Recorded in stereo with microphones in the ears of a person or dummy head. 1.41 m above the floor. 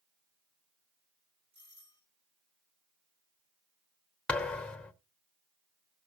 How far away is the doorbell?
About 9 m.